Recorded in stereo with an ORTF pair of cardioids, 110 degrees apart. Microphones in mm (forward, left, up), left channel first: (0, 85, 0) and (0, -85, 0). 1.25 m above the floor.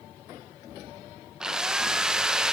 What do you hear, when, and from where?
1.4 s a drill: 5° right, 1.1 m